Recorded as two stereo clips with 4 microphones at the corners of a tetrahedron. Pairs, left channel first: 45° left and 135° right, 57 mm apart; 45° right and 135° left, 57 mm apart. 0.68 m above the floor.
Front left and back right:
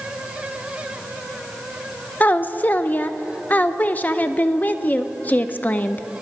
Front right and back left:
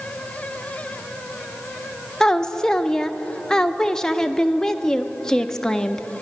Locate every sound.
2.2 s a woman speaking: 25° left, 0.5 m